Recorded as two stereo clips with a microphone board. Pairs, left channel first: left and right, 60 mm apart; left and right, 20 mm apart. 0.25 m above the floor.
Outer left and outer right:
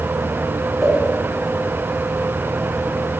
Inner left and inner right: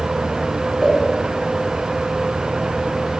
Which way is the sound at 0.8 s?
Centre (ahead or behind).